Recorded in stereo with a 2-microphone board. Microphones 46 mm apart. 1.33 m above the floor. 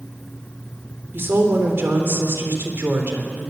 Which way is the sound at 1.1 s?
55° right (ahead or behind).